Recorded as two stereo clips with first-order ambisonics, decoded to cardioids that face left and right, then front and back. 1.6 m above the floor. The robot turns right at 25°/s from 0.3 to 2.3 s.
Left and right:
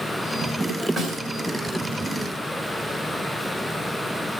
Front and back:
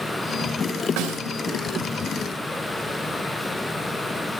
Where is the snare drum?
175° left, 2.5 m; by 1.2 s 175° right, 2.5 m.